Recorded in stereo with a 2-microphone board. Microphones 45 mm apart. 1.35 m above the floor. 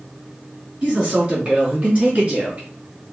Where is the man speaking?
25° right (ahead or behind), 3 m; by 2.7 s 35° right (ahead or behind), 2 m.